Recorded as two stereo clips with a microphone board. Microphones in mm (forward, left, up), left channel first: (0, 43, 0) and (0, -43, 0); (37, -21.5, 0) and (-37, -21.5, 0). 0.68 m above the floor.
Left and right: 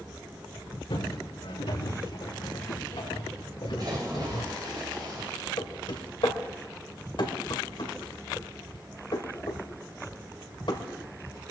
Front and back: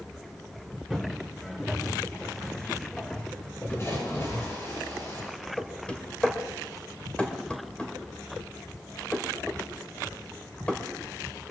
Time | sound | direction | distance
0.9 | footsteps | 85° left | 4 m
3.8 | a splash | 50° right | 7.5 m
5.6 | knocking | 75° left | 2 m